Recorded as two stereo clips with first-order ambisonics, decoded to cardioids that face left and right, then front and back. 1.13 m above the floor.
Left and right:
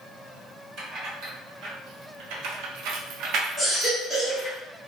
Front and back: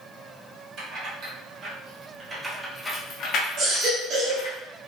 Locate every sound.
0.8 s keys jangling: 135° right, 1.3 m; by 4.6 s straight ahead, 0.9 m
3.6 s a baby crying: straight behind, 0.8 m